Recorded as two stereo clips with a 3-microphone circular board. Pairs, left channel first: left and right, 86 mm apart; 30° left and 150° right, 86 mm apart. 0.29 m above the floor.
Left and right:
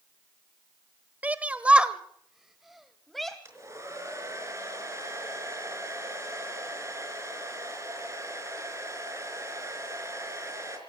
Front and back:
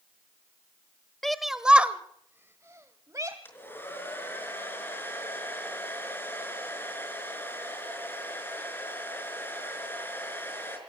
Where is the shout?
50° right, 0.9 m; by 3.4 s 175° left, 1.3 m.